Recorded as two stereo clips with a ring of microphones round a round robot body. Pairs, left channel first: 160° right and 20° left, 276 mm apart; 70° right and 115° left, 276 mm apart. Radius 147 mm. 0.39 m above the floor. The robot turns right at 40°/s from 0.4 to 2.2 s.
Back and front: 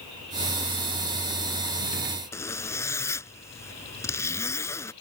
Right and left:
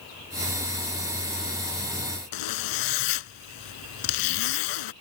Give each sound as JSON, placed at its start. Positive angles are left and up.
{"t": 2.3, "sound": "a zipper", "azimuth_deg": -75}